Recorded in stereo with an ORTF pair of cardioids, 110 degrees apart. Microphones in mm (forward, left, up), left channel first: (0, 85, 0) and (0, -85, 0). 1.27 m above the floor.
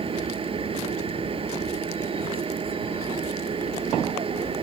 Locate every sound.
0.0 s a machine running: 35° right